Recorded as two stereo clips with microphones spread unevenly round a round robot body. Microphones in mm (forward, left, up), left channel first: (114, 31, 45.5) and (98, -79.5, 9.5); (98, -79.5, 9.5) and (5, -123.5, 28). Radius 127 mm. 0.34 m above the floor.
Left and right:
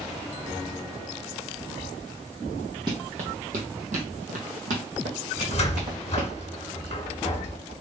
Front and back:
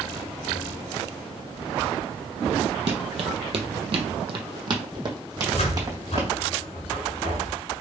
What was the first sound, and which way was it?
Running footsteps, 175° right.